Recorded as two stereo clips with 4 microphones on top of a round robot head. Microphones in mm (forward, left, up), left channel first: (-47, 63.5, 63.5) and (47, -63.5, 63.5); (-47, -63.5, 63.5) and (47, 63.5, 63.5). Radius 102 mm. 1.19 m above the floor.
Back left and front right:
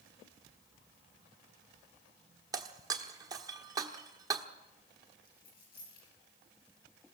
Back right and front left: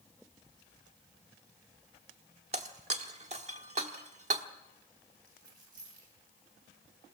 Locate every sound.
2.5 s breaking glass: 10° left, 1.0 m
5.2 s a dropped coin: 95° left, 9.5 m